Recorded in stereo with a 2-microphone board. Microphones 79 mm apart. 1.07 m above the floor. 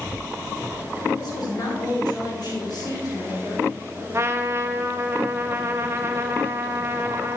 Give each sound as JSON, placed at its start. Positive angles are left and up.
{"t": 1.1, "sound": "a woman speaking", "side_deg": 60, "distance_m": 3.0}
{"t": 4.1, "sound": "a trumpet", "side_deg": -35, "distance_m": 0.7}